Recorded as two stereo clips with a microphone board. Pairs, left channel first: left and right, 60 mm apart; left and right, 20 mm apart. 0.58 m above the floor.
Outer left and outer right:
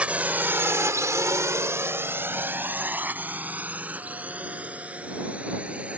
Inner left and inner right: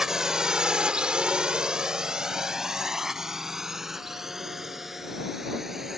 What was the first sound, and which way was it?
A drone, 20° right (ahead or behind).